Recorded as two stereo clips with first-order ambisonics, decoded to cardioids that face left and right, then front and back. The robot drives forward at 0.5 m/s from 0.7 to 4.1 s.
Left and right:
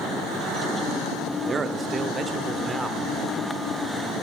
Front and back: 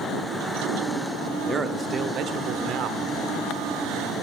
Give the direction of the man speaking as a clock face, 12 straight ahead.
4 o'clock.